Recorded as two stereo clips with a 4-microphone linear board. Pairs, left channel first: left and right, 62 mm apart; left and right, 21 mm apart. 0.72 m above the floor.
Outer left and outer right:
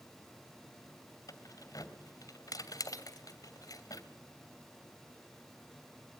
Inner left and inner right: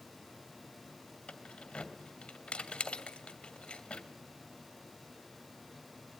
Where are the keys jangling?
70° left (ahead or behind), 2.5 m.